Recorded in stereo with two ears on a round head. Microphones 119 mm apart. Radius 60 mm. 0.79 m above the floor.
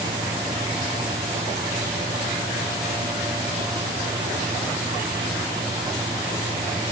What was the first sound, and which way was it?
Only background noise.